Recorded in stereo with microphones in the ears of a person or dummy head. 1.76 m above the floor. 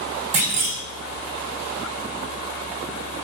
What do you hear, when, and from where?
0.3 s a clunk: 50° right (ahead or behind), 1.9 m